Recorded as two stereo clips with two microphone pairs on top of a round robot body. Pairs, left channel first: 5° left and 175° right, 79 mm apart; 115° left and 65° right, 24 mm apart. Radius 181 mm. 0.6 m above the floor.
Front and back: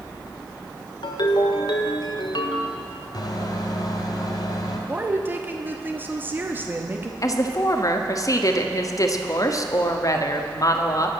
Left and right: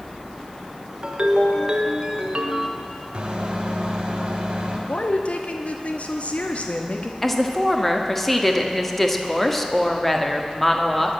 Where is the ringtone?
5° right, 1.6 m.